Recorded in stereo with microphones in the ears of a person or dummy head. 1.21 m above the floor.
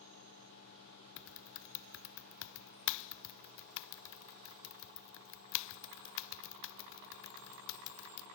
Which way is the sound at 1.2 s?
60° left (ahead or behind).